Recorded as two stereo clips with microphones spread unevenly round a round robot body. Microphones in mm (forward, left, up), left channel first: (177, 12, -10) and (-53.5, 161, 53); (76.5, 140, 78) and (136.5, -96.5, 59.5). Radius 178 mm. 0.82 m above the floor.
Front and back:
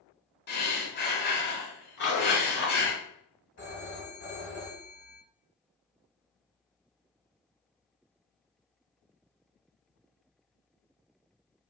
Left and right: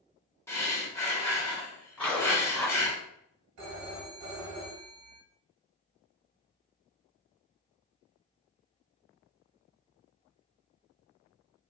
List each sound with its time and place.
0.5 s breathing: 25° left, 1.3 m
2.0 s a zipper: 20° left, 1.6 m
3.6 s a phone ringing: 85° right, 1.2 m